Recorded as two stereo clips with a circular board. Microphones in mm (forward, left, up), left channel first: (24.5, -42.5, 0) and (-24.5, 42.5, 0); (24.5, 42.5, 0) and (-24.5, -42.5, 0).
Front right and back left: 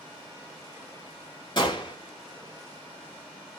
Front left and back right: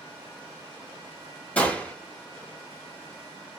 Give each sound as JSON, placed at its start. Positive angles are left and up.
{"t": 1.6, "sound": "a gunshot", "azimuth_deg": -15, "distance_m": 1.7}